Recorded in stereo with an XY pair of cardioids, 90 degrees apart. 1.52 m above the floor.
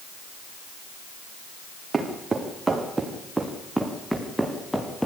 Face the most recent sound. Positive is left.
turn(degrees=5)